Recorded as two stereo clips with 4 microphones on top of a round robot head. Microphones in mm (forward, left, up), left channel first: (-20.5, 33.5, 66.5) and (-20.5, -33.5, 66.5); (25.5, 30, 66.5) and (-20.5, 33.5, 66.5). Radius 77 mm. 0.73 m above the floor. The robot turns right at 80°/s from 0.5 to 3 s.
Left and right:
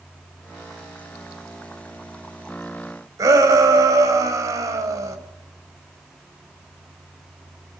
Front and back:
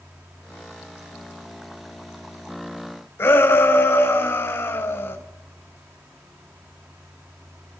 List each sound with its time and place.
3.2 s a shout: 45° right, 4.5 m